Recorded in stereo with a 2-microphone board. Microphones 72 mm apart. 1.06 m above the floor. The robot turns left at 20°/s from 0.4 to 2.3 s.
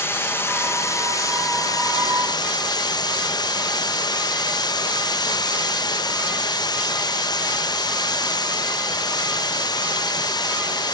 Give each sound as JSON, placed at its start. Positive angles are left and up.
{"t": 0.0, "sound": "running water", "azimuth_deg": 150, "distance_m": 0.7}